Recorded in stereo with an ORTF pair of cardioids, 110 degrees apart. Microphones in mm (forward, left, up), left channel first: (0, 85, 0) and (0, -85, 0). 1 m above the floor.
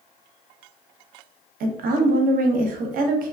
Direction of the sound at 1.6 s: 60° right.